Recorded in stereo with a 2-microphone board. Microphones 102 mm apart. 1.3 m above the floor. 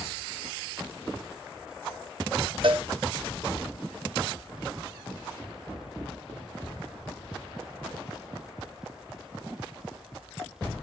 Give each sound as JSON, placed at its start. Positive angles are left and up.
{"t": 2.6, "sound": "a cowbell", "side_deg": -55, "distance_m": 1.0}